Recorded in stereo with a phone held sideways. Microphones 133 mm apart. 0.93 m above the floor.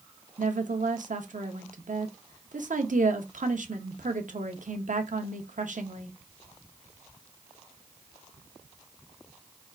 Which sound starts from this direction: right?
A woman speaking, at 0.4 s.